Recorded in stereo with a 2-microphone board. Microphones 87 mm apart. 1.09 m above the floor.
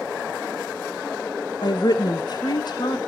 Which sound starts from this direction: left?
A woman speaking, at 1.6 s.